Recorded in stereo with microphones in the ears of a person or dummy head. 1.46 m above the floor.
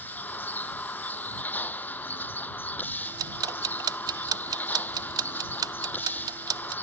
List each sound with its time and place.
0.0 s a vehicle: 10° left (ahead or behind)
3.0 s ticking: 20° right (ahead or behind)